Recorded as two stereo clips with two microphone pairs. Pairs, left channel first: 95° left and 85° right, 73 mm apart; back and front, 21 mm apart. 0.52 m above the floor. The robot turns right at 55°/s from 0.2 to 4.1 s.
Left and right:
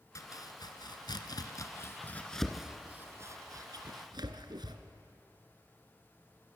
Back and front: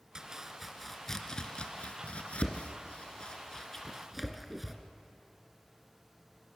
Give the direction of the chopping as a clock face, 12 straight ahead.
10 o'clock.